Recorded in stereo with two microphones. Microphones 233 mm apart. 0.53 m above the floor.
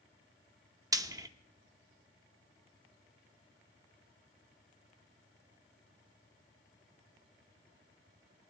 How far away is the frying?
About 0.6 m.